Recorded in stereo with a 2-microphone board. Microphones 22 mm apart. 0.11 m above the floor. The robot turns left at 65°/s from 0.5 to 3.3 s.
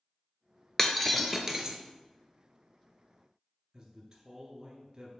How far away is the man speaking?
About 1.1 m.